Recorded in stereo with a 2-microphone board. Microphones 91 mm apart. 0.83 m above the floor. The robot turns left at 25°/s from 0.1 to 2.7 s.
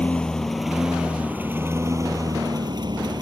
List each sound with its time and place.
0.0 s a lawn mower: 10° left; by 3.2 s 55° right